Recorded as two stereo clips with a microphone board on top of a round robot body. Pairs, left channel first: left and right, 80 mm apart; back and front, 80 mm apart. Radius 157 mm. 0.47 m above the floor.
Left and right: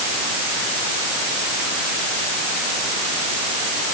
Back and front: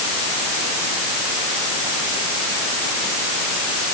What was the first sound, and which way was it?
Only background noise.